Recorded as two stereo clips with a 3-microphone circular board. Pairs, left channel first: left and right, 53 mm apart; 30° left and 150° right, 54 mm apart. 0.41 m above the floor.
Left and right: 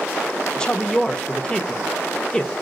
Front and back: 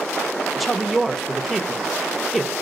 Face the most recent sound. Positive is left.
turn(degrees=125)